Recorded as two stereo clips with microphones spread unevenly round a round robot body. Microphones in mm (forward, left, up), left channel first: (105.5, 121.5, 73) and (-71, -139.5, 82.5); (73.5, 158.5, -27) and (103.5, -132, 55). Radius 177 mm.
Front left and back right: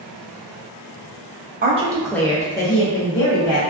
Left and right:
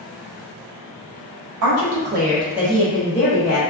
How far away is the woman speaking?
About 0.7 m.